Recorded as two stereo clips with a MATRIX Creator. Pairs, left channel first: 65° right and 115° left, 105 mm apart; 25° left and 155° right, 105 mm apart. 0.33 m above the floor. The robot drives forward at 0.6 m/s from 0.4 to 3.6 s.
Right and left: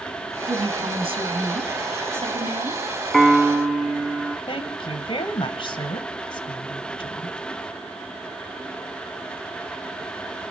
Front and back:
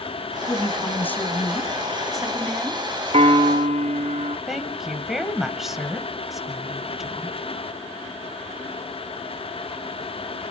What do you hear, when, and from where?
0.5 s a woman speaking: 85° left, 2.5 m; by 2.8 s 120° left, 2.5 m
3.1 s a piano: 155° right, 0.5 m; by 4.4 s 165° right, 0.8 m
4.5 s a woman speaking: 70° right, 1.9 m